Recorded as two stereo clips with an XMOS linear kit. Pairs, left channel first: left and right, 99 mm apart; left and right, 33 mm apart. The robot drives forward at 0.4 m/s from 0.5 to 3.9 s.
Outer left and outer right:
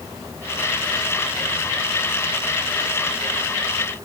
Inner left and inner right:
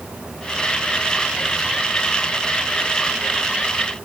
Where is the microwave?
I don't hear a microwave.